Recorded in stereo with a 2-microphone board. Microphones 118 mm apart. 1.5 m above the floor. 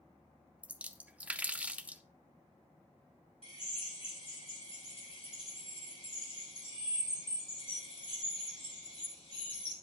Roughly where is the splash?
Centre.